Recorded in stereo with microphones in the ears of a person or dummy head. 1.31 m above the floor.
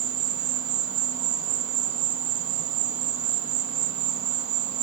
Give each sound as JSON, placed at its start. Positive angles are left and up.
{"t": 0.0, "sound": "an insect", "side_deg": -45, "distance_m": 1.0}